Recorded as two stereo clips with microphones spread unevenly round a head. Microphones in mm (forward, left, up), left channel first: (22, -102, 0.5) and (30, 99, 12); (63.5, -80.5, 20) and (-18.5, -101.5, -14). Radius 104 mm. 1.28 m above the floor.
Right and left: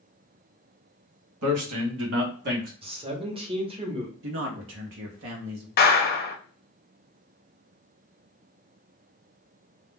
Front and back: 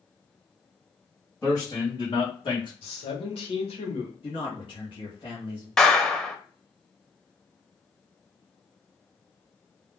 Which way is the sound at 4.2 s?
60° left.